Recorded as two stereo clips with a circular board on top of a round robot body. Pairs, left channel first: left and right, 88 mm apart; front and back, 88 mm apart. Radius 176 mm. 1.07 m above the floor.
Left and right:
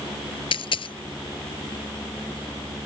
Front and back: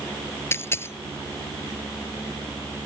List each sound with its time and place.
0.5 s a dropped coin: 65° left